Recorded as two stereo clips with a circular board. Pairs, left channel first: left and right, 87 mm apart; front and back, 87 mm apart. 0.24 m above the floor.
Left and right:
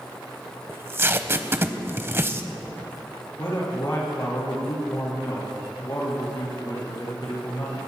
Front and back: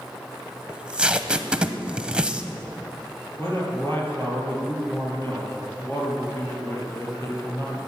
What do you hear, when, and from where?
0.7 s tape being pulled: 115° right, 0.8 m
3.4 s a man speaking: 50° left, 5.5 m